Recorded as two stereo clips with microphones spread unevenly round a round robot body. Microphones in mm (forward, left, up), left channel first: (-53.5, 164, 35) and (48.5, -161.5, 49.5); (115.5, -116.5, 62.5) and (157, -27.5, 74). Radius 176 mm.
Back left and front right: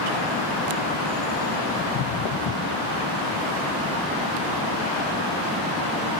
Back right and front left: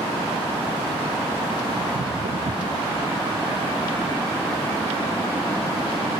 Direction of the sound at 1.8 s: 65° left.